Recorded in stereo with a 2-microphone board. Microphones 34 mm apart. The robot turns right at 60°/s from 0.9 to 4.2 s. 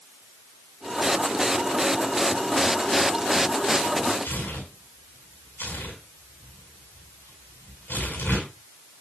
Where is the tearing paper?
75° left (ahead or behind), 7.5 m.